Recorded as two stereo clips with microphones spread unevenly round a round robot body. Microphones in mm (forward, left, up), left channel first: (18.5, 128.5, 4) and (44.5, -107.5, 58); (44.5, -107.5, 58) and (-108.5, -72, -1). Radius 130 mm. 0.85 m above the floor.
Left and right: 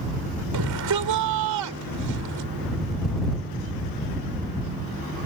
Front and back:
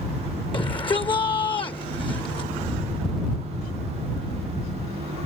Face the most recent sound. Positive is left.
turn(degrees=-75)